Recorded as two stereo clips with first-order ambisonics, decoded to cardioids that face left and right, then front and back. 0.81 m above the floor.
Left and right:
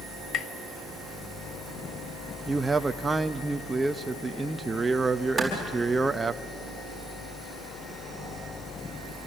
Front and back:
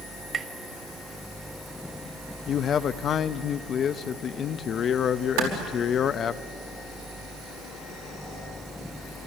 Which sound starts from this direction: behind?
A clap, at 5.4 s.